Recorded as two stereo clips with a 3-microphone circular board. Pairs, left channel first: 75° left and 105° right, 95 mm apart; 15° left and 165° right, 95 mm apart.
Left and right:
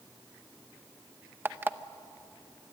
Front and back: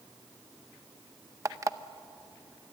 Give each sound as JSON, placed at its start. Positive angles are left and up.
{"t": 1.4, "sound": "an alarm clock", "azimuth_deg": -150, "distance_m": 0.7}